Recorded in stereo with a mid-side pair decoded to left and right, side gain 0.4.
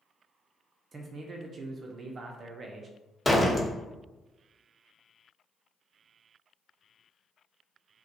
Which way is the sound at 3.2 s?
15° left.